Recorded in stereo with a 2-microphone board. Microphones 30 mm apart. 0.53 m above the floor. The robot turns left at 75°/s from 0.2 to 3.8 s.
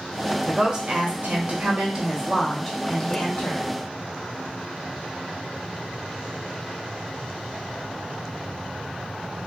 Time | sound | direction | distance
0.5 | a woman speaking | 30° right | 1.0 m